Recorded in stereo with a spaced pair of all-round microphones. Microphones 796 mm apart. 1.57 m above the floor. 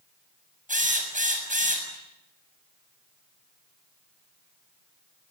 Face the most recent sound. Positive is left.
turn(degrees=-10)  # may be behind; listen again after turning